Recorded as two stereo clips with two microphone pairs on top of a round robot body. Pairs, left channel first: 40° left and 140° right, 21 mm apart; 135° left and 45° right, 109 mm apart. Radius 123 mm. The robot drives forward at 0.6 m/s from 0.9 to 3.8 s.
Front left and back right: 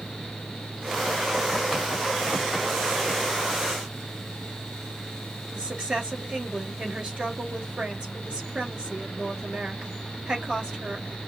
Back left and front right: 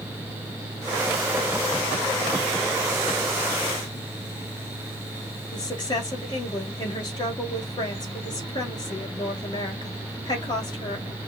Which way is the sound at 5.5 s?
175° right.